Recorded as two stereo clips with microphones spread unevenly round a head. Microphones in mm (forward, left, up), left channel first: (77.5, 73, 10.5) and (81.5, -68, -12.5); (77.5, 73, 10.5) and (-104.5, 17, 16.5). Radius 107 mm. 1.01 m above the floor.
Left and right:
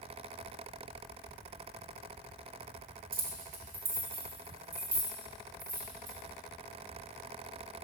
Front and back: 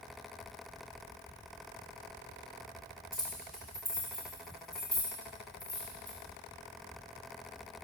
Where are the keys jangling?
75° right, 1.2 m; by 6.2 s 70° right, 3.5 m.